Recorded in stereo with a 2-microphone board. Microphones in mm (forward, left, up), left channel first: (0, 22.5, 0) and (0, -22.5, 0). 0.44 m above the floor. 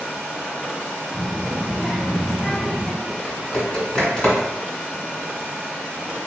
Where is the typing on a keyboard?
25° left (ahead or behind), 1.6 m.